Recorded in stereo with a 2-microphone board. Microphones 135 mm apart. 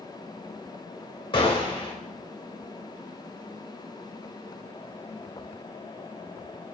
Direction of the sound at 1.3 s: 35° left (ahead or behind).